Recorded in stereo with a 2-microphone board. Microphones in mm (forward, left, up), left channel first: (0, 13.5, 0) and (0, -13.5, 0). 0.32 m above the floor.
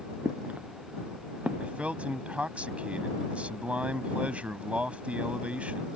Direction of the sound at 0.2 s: 70° right (ahead or behind).